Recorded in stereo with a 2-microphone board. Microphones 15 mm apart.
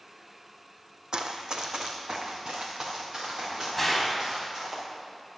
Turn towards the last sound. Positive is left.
turn(degrees=5)  # may be behind; listen again after turning